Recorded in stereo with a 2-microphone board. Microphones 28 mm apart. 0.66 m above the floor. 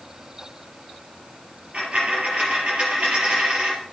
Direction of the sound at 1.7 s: 40° right (ahead or behind).